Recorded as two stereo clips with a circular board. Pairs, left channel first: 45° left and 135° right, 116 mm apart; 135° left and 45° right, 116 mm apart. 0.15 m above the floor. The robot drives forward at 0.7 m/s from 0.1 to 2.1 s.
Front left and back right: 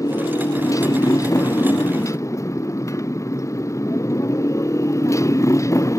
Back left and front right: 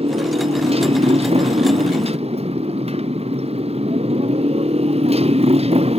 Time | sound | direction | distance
0.0 | a motorcycle | 15° right | ?